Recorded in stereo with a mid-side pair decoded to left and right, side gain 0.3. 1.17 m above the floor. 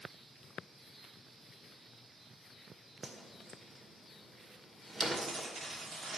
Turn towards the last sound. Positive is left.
turn(degrees=-65)